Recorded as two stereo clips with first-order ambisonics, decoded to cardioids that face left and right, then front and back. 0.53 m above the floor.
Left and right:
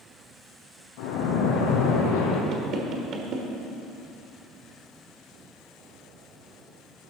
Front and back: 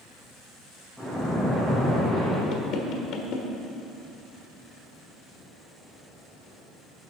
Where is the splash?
85° left, 3 m.